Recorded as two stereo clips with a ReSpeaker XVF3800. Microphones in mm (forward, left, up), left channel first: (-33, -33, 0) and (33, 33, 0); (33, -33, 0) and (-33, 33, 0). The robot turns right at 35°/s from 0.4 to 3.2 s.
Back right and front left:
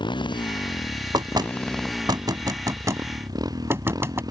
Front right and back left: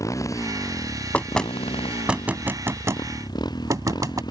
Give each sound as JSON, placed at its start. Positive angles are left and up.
{"t": 0.0, "sound": "a motorcycle", "azimuth_deg": -100}
{"t": 1.1, "sound": "knocking", "azimuth_deg": 25}